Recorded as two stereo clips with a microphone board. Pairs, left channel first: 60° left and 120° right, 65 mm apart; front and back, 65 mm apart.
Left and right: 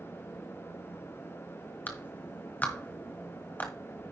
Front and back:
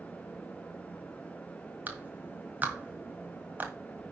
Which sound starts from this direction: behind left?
A clap, at 1.9 s.